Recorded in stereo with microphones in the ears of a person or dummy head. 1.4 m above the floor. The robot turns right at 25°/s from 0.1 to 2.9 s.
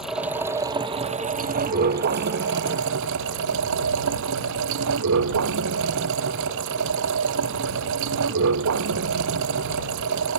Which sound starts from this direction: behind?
Running water, at 0.0 s.